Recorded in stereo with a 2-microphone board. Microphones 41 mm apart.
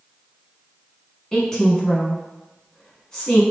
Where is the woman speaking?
15° left (ahead or behind), 1.2 m.